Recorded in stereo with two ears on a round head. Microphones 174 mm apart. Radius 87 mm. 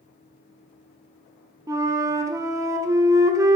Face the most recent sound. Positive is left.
turn(degrees=-15)  # may be behind; listen again after turning